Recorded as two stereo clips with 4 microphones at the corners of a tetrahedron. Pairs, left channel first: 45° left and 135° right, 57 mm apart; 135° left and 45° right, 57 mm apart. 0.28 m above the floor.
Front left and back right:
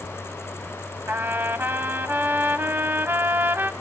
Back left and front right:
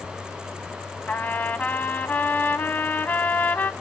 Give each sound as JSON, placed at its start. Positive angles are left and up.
{"t": 1.1, "sound": "a trumpet", "azimuth_deg": -175, "distance_m": 0.6}